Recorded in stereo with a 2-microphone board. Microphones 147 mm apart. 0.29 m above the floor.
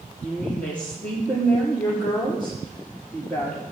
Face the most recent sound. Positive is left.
turn(degrees=10)  # may be behind; listen again after turning